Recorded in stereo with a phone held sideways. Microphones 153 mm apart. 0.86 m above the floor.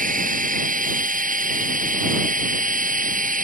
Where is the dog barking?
I don't hear a dog barking.